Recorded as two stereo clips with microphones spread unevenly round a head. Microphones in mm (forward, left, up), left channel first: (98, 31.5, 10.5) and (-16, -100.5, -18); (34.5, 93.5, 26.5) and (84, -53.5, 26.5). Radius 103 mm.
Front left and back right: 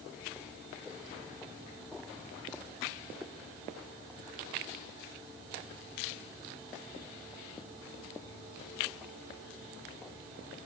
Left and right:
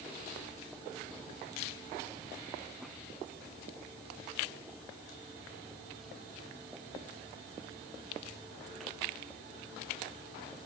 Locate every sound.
Only background noise.